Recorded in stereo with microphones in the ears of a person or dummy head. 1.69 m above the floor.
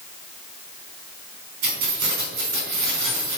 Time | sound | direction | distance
1.6 | keys jangling | 70° right (ahead or behind) | 4.5 m